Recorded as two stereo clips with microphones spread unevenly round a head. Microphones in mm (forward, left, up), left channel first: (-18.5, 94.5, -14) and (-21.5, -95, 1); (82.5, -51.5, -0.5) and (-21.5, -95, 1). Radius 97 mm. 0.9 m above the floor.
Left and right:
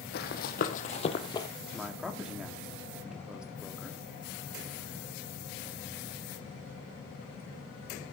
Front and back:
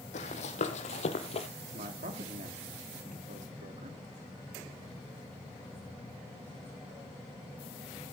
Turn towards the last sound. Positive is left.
turn(degrees=-175)